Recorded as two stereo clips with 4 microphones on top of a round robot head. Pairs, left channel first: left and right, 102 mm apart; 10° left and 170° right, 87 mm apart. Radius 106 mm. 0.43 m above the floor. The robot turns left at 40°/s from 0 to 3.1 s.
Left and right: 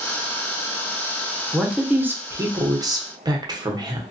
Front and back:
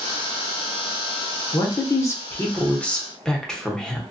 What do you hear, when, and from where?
1.5 s a man speaking: 5° right, 1.0 m; by 4.0 s 70° right, 1.0 m